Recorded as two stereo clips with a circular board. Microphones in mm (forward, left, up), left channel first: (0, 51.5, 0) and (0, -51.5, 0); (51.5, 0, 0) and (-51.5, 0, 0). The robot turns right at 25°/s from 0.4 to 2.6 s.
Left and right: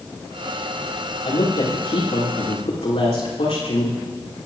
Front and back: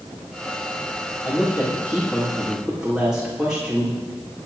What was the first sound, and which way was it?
A woman speaking, 65° left.